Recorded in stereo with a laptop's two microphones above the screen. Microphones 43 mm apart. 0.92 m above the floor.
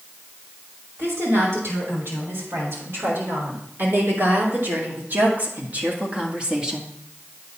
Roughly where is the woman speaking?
Right.